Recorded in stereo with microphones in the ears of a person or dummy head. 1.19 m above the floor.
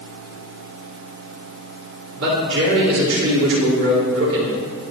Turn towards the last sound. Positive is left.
turn(degrees=-80)